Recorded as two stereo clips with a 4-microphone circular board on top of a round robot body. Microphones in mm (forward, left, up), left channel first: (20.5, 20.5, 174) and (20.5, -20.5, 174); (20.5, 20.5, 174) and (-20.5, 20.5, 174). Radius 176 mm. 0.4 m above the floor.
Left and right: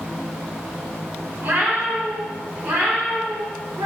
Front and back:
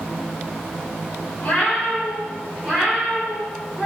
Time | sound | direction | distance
1.4 | a cat meowing | 45° right | 0.8 m